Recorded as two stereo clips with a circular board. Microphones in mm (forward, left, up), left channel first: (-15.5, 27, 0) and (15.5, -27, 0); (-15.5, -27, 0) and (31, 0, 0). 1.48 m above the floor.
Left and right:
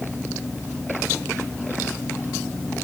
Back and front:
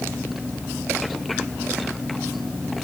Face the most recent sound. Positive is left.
No sound to turn to.